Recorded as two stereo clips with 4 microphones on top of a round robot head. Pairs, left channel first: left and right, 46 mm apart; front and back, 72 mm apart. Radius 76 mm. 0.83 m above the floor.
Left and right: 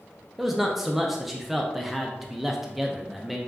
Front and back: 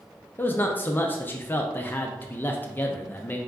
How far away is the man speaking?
About 0.5 m.